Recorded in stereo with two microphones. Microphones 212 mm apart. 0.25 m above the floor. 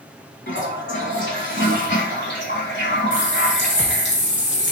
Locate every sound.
0.5 s a toilet flushing: 60° left (ahead or behind), 1.1 m
3.1 s a running tap: 65° left (ahead or behind), 2 m